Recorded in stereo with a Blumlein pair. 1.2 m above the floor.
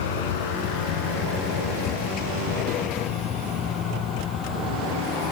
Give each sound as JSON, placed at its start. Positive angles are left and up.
{"t": 0.0, "sound": "a vehicle", "azimuth_deg": 55}